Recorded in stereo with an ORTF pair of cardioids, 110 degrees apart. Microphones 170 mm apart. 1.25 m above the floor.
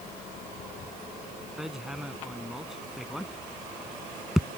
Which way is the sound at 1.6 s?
5° right.